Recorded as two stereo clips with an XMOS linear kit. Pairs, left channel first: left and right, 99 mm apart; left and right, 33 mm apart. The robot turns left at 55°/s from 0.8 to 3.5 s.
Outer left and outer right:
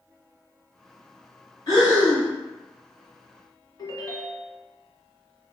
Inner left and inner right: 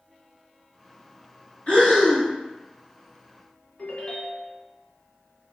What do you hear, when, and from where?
1.7 s breathing: 70° left, 1.5 m; by 2.3 s 35° left, 1.5 m
3.8 s a ringtone: 45° left (ahead or behind), 1.0 m